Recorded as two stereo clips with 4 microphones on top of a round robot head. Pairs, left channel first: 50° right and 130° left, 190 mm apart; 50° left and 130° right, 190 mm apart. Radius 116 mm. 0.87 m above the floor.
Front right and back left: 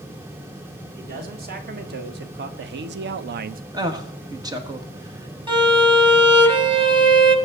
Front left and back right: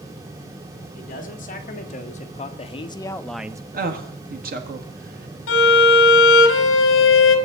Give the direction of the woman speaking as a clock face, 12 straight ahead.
5 o'clock.